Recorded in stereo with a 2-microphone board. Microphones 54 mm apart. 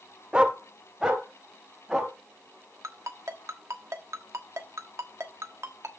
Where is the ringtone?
60° right (ahead or behind), 1.2 m.